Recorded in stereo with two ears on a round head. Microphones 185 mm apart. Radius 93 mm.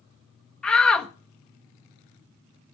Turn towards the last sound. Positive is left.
turn(degrees=5)  # may be behind; listen again after turning